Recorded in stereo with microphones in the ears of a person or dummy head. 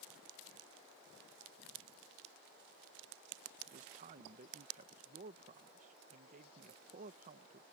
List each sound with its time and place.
3.7 s a man speaking: 40° right (ahead or behind)